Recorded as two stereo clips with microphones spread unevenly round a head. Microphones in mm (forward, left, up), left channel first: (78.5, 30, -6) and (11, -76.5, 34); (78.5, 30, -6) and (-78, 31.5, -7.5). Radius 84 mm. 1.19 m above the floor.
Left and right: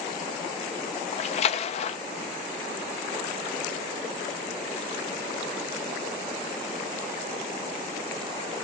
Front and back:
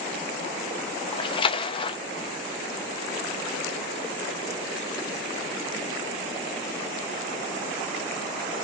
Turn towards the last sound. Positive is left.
turn(degrees=55)